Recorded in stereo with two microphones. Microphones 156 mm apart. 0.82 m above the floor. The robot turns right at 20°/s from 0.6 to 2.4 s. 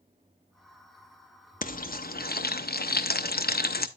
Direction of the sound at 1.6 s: 60° left (ahead or behind).